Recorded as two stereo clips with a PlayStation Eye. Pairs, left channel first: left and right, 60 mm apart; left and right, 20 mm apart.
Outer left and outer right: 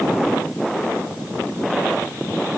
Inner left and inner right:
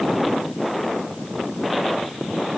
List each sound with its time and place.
Only background noise.